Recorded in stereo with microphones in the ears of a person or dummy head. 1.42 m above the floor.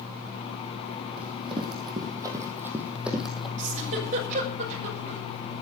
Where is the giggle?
40° right (ahead or behind), 5 m.